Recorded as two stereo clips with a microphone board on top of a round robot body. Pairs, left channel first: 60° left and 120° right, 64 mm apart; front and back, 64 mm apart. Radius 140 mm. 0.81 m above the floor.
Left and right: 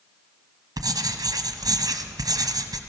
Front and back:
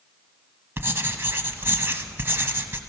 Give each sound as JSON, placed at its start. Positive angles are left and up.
{"t": 0.8, "sound": "writing", "azimuth_deg": -130, "distance_m": 1.1}